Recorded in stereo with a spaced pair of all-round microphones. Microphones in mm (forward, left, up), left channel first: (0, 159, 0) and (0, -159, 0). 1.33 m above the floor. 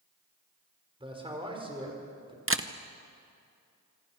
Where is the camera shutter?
40° right (ahead or behind), 0.9 m.